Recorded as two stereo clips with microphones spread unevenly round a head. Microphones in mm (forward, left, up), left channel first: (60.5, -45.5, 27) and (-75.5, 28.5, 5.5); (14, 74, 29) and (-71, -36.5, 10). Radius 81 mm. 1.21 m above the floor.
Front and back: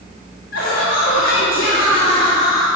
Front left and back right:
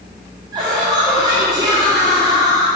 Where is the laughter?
60° right, 2.5 m.